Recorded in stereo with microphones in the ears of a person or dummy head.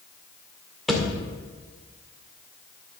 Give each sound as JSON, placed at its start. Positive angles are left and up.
{"t": 0.9, "sound": "a thud", "side_deg": 0, "distance_m": 2.0}